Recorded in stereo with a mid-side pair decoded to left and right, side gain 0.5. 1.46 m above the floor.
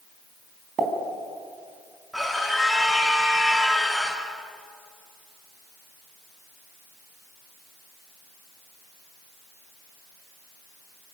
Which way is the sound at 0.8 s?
55° right.